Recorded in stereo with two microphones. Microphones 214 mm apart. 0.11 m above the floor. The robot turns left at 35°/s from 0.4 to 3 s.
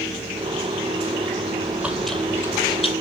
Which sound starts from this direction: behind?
Chewing, at 1.6 s.